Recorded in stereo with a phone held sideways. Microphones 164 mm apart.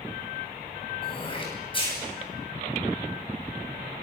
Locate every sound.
1.0 s throat clearing: 30° left (ahead or behind), 10 m